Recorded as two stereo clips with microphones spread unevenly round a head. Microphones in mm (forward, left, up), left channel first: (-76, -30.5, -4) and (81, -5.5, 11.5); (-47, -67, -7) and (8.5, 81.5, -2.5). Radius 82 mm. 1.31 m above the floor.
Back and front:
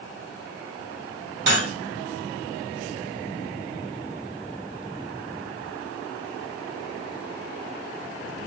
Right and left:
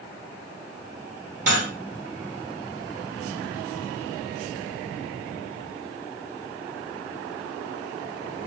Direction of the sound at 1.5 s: 25° left.